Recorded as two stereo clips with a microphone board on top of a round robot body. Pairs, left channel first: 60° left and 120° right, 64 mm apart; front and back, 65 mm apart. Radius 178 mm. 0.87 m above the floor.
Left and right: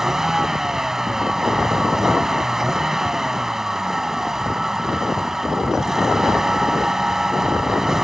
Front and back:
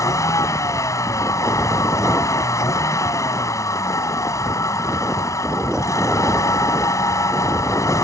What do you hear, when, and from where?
0.0 s a vehicle: 35° right